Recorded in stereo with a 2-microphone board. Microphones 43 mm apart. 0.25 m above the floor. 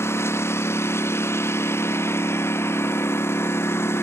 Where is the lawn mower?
60° left (ahead or behind).